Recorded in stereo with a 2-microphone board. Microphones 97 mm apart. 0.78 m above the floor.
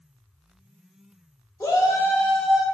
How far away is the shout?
About 1.0 m.